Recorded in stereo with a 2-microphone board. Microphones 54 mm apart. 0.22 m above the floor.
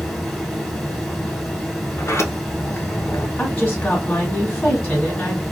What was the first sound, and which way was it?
Running water, centre (ahead or behind).